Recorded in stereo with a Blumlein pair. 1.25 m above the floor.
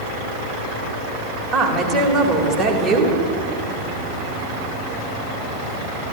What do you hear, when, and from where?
1.5 s a woman speaking: 10° right, 2 m